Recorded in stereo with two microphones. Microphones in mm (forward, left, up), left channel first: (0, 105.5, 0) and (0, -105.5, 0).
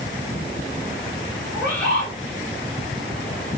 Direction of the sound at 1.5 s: 5° left (ahead or behind).